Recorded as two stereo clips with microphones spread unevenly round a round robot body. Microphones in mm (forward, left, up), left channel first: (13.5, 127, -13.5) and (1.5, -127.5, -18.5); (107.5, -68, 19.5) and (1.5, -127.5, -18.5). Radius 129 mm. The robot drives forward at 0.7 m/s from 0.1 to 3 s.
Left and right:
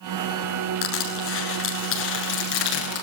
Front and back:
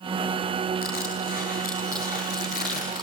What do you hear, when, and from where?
0.8 s crushing: 130° left, 9 m; by 3.0 s 135° left, 10 m